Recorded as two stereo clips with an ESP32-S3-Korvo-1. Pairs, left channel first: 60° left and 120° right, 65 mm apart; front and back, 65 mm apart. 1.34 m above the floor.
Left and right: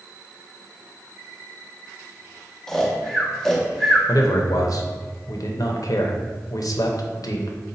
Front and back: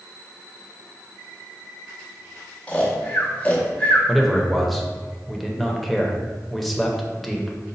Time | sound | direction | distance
2.7 | snoring | 10° right | 0.8 m
4.1 | a man speaking | 90° left | 0.5 m